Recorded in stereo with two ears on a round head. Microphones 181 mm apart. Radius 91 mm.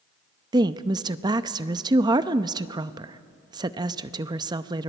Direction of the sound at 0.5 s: 20° right (ahead or behind).